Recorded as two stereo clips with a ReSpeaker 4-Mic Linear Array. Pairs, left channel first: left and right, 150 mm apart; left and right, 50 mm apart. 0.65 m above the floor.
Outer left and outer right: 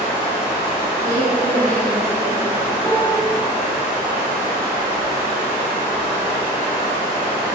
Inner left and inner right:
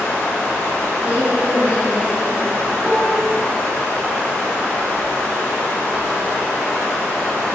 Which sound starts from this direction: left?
Running water, at 0.0 s.